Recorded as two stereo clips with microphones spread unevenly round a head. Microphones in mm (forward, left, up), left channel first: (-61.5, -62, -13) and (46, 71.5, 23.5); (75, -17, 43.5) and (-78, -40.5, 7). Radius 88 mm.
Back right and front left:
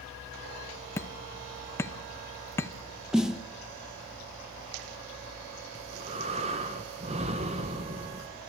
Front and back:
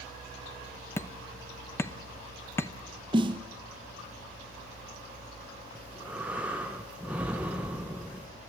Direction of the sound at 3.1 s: 120° left.